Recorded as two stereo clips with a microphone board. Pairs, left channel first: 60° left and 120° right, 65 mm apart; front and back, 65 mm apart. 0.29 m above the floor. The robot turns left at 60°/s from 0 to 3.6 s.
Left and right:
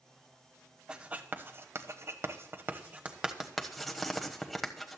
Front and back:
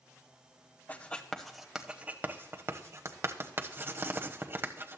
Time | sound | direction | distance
0.9 | writing | 50° right | 1.1 m